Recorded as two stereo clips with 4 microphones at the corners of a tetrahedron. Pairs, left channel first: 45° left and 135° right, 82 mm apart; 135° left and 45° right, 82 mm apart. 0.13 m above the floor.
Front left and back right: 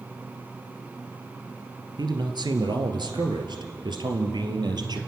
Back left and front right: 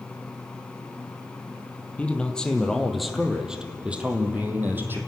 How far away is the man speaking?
About 2.5 m.